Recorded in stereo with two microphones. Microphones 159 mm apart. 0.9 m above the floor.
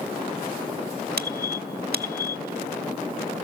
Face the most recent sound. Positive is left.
turn(degrees=-80)